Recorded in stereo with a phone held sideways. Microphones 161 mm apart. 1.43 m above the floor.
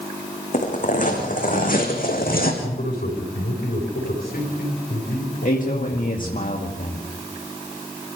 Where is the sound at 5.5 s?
60° left (ahead or behind), 2 m.